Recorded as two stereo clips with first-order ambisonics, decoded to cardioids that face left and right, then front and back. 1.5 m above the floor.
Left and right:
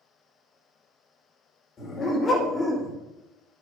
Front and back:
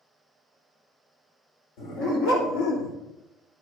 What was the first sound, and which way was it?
A dog barking, 25° left.